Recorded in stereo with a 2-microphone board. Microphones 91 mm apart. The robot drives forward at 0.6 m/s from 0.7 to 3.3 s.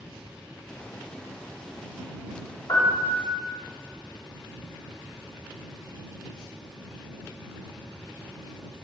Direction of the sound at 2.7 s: 50° left (ahead or behind).